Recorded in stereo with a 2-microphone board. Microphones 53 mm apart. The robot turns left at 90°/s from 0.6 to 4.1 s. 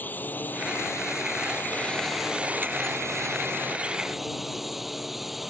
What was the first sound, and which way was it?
A drone, 140° left.